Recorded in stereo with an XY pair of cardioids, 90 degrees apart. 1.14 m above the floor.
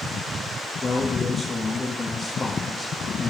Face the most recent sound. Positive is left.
turn(degrees=30)